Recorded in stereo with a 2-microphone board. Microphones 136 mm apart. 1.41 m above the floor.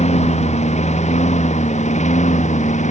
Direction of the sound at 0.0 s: 55° left (ahead or behind).